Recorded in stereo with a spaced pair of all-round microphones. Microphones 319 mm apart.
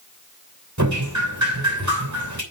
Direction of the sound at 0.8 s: 65° right (ahead or behind).